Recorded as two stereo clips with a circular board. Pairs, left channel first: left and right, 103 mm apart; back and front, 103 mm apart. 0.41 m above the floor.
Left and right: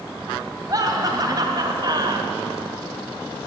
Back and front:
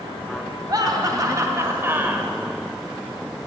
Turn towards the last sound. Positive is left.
turn(degrees=-70)